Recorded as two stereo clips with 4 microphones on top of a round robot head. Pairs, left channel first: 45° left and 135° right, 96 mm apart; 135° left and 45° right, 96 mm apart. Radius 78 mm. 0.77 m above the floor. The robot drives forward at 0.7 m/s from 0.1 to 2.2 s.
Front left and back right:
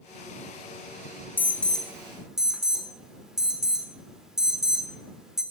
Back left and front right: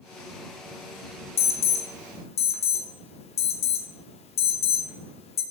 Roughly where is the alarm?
Behind left.